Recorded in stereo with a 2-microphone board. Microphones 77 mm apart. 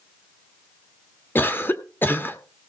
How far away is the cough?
About 1.2 m.